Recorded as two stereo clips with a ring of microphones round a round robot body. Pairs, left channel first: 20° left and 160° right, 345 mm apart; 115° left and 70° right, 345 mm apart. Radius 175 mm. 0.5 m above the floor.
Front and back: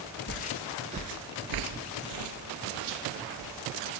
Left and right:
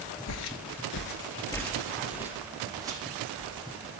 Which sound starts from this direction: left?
Footsteps, at 0.3 s.